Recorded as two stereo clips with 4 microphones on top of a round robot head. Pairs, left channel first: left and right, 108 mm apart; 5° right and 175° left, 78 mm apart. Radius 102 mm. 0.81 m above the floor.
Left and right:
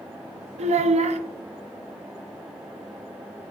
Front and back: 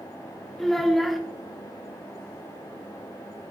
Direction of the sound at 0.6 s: 90° right.